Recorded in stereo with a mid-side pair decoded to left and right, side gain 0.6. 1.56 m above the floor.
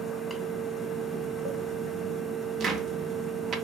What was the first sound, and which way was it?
A fan, straight ahead.